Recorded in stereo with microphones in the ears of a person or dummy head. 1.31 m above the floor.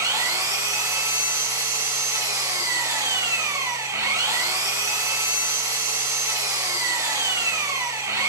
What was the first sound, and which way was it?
An engine running, 20° right (ahead or behind).